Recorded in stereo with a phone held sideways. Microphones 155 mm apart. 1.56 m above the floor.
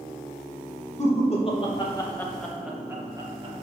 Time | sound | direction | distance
1.0 | laughter | 45° left (ahead or behind) | 2.5 m